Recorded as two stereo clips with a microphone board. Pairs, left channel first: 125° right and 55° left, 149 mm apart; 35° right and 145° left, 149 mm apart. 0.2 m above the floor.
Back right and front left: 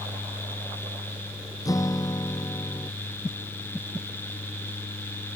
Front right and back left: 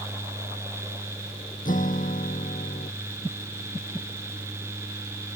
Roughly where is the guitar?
Ahead right.